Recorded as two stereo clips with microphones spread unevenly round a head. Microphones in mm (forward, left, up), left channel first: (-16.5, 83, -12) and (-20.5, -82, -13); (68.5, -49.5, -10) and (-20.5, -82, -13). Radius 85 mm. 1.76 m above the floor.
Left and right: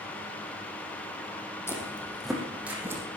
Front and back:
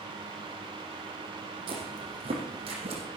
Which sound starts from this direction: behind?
Footsteps, at 1.7 s.